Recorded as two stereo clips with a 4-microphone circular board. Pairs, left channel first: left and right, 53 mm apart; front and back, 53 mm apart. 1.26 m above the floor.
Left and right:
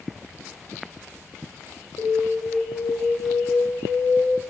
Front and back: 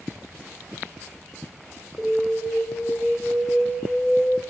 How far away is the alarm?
About 2.5 m.